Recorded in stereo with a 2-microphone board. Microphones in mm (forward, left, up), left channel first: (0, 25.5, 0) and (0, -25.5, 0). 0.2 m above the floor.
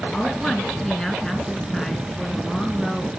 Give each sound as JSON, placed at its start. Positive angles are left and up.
{"t": 0.1, "sound": "a woman speaking", "side_deg": 5, "distance_m": 3.0}